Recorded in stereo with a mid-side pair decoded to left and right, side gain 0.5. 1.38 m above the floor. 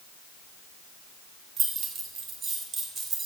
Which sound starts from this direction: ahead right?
Keys jangling, at 1.6 s.